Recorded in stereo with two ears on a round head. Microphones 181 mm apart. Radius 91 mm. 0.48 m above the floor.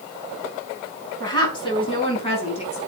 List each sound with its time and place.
1.2 s a woman speaking: 20° left (ahead or behind), 4.5 m; by 2.8 s 35° left (ahead or behind), 5 m